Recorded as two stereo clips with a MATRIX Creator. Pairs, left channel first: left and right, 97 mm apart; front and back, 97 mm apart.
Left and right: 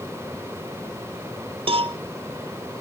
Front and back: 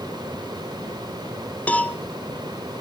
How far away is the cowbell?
About 0.8 m.